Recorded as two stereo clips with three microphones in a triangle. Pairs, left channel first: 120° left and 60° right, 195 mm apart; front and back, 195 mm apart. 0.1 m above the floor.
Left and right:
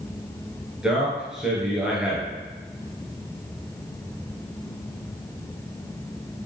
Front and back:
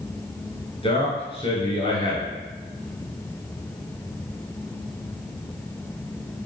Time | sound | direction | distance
0.8 | a man speaking | 20° left | 1.4 m